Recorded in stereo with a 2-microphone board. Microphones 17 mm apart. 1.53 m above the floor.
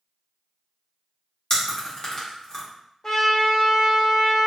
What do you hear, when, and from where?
1.5 s chewing: 25° left (ahead or behind), 0.9 m
3.0 s a trumpet: 25° left (ahead or behind), 1.1 m